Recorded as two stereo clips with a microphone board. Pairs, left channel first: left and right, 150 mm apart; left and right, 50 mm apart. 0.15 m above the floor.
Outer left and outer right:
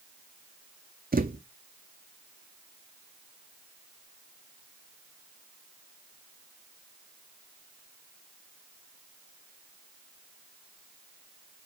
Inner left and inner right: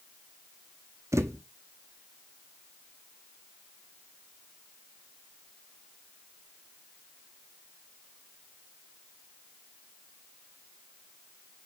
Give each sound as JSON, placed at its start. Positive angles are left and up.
{"t": 1.1, "sound": "a thud", "side_deg": -80, "distance_m": 0.7}